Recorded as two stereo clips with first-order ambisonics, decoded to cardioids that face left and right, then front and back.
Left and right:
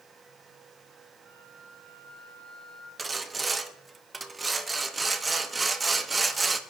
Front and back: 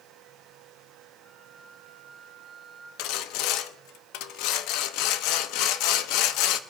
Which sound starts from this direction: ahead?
Sawing, at 3.0 s.